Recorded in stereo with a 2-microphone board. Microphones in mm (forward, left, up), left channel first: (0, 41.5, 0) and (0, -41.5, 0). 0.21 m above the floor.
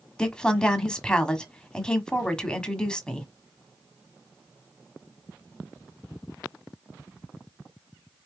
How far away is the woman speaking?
About 1.1 m.